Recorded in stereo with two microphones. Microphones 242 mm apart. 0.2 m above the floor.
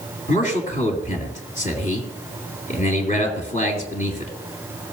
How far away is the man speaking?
About 3 m.